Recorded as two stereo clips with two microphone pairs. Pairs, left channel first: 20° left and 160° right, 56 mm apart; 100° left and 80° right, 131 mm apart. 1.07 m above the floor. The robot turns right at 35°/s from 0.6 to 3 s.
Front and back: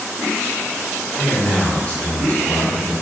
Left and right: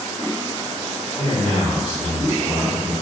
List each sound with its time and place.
1.2 s a man speaking: 55° right, 1.7 m; by 2.9 s 5° left, 1.7 m